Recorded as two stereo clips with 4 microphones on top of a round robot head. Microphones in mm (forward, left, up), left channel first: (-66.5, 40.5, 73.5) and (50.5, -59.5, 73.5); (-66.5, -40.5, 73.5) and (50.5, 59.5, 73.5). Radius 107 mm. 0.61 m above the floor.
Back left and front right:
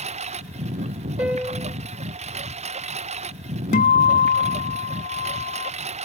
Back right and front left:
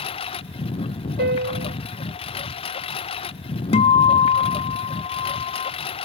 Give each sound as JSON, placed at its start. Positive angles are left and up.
{"t": 0.0, "sound": "a lawn mower", "azimuth_deg": -85}
{"t": 1.2, "sound": "a piano", "azimuth_deg": 40}
{"t": 3.7, "sound": "a guitar", "azimuth_deg": 170}